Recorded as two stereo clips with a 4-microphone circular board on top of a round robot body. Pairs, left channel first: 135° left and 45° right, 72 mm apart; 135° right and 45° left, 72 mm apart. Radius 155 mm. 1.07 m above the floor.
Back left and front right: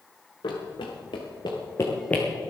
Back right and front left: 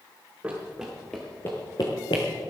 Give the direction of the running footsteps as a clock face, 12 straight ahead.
8 o'clock.